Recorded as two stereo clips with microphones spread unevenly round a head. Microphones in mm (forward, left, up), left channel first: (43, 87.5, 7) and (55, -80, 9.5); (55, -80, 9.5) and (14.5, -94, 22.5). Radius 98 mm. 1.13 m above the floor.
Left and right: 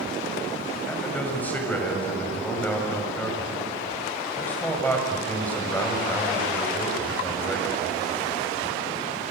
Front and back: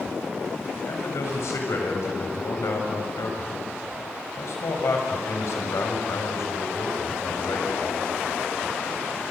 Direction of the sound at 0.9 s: 15° left.